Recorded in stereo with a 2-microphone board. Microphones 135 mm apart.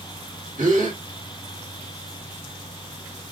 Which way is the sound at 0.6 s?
70° right (ahead or behind).